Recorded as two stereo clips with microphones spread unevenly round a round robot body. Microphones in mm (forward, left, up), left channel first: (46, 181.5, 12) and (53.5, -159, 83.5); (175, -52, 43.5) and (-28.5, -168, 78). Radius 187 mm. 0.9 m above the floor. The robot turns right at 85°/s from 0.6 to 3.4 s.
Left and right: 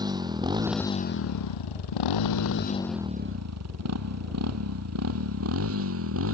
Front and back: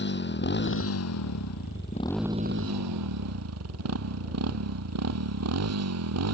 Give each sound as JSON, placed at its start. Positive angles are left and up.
{"t": 0.0, "sound": "a motorcycle", "azimuth_deg": -10}